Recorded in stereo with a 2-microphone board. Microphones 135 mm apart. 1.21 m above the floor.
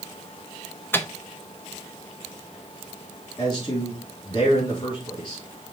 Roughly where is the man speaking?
Left.